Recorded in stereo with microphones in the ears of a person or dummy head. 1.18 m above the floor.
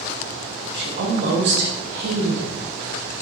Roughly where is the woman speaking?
Right.